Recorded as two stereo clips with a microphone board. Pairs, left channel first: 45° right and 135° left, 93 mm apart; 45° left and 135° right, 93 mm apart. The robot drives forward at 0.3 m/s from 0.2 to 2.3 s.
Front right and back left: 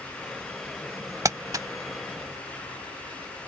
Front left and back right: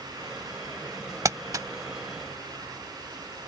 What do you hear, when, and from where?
1.2 s crumpling: straight behind